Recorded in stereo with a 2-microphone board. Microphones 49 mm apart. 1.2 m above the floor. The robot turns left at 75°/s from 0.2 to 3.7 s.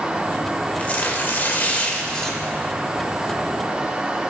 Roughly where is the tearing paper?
Behind left.